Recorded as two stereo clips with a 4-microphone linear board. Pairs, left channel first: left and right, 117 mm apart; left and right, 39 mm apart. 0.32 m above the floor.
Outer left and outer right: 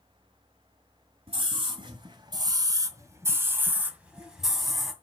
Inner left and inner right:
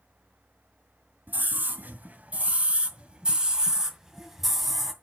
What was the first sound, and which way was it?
A scream, 55° right (ahead or behind).